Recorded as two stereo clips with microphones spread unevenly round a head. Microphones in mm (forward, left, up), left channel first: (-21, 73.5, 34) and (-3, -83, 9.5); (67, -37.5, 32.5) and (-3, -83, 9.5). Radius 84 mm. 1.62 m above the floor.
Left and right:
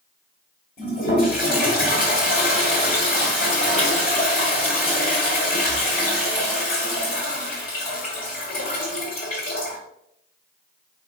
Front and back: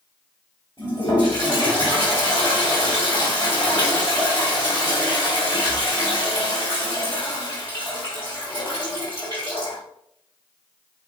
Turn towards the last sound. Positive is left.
turn(degrees=95)